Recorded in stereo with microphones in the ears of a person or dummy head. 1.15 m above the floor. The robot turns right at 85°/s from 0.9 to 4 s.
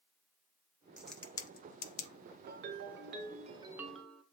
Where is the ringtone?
125° right, 0.8 m; by 4.2 s 5° left, 0.8 m.